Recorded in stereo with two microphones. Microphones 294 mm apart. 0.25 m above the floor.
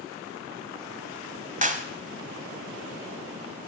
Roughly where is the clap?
Right.